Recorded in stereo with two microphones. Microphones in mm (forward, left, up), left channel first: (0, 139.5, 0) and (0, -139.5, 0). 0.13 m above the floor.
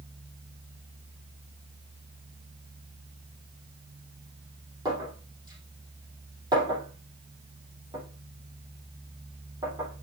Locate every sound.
4.8 s a clink: 15° right (ahead or behind), 4 m